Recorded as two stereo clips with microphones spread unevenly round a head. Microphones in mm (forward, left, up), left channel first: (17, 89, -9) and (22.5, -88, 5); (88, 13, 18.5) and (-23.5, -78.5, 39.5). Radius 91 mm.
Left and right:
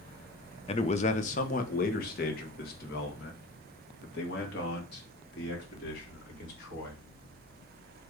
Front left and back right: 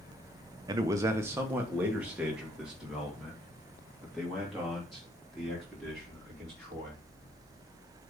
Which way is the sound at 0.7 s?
150° left.